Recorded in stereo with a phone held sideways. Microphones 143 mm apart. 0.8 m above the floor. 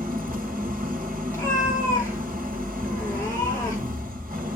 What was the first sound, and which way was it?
An engine running, 75° right (ahead or behind).